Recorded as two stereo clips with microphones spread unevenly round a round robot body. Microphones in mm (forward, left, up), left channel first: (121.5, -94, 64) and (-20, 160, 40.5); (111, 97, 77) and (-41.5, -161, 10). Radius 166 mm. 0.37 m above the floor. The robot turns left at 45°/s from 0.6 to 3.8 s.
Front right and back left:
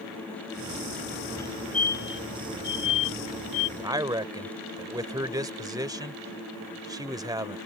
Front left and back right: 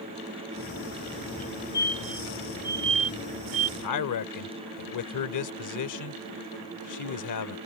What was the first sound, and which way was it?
A fire alarm, 20° left.